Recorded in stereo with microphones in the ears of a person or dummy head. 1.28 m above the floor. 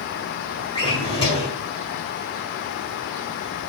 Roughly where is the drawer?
Left.